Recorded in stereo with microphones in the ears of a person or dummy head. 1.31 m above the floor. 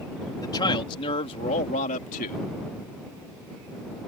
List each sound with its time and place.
0.4 s a man speaking: 20° left (ahead or behind); by 2.5 s 50° left (ahead or behind)